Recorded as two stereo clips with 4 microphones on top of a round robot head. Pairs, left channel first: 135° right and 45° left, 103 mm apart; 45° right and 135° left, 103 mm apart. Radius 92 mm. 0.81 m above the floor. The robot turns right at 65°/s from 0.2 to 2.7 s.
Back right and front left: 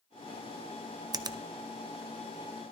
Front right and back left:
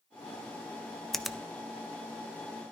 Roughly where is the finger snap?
Ahead left.